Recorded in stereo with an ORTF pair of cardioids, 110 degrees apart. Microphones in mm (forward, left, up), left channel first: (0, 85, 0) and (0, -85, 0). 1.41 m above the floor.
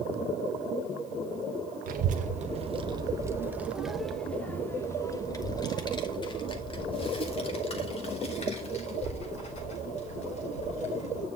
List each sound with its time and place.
1.9 s a child speaking: 60° right, 1.1 m; by 11.2 s 45° left, 4.5 m